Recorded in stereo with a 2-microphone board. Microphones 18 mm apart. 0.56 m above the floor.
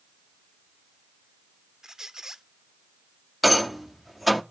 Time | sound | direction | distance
1.8 | a squeak | 30° right (ahead or behind) | 0.7 m
3.4 | a rattle | 5° right (ahead or behind) | 0.7 m